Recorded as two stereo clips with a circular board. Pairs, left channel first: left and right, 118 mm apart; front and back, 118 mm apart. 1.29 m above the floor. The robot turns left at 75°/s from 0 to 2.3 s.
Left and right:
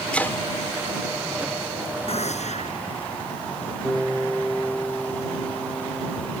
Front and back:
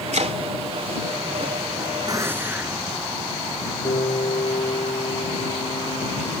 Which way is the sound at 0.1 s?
170° left.